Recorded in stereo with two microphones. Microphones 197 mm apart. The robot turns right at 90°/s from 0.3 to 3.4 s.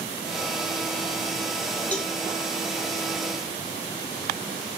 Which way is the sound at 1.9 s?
10° left (ahead or behind).